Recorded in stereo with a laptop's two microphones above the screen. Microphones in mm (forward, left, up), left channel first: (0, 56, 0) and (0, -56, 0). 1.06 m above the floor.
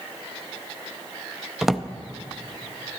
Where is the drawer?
Centre (ahead or behind), 0.5 m.